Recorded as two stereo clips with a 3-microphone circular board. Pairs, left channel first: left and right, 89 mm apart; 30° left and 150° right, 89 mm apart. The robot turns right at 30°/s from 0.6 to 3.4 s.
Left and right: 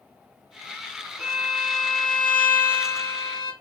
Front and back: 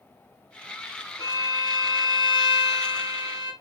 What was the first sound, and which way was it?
A violin, 10° right.